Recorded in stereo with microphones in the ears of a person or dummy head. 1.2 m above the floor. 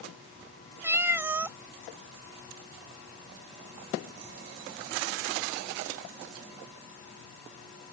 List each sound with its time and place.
0.8 s a cat meowing: 15° right (ahead or behind)